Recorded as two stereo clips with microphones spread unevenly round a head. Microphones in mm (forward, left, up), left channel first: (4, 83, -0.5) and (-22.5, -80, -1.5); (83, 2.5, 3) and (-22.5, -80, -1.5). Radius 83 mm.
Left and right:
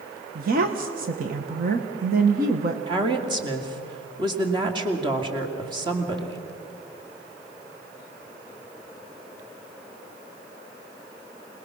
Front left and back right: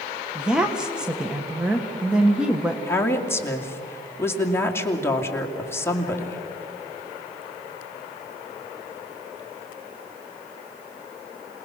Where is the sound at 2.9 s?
35° right, 2.5 m.